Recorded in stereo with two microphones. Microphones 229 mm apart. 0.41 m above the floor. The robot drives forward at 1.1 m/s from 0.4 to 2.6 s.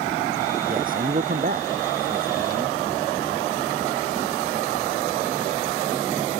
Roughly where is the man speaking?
Right.